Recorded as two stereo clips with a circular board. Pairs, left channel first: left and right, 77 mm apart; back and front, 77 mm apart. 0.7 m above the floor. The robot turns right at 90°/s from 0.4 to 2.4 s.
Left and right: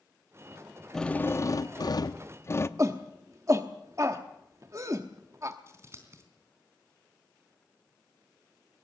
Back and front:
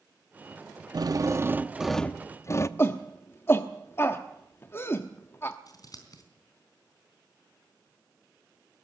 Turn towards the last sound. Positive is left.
turn(degrees=-145)